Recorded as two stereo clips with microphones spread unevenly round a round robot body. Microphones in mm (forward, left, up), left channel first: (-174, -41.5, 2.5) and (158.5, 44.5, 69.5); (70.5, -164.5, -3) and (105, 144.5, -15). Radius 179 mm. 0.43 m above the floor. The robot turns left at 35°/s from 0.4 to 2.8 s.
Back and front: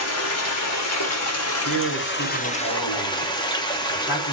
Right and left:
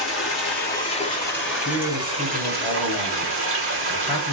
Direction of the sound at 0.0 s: 145° right.